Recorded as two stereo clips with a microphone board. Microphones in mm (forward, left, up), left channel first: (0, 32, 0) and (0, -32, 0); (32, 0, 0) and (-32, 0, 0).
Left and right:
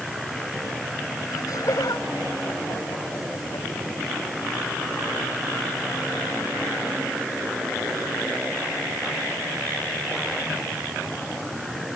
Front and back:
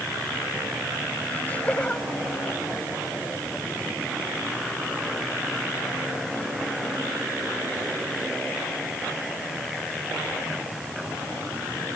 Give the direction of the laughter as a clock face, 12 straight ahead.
10 o'clock.